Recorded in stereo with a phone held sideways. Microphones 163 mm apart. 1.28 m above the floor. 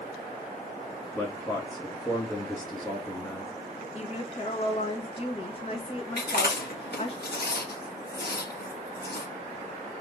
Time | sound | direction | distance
1.1 | a man speaking | 15° left (ahead or behind) | 1.3 m
4.0 | a woman speaking | 35° left (ahead or behind) | 1.3 m
6.2 | chewing | 80° left | 1.7 m